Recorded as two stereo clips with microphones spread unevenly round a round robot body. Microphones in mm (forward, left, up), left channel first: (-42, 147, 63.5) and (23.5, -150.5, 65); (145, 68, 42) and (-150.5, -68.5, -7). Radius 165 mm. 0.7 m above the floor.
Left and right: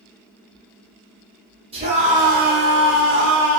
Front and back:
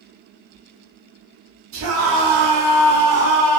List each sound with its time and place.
1.7 s a scream: 145° right, 1.2 m; by 3.6 s 65° right, 0.9 m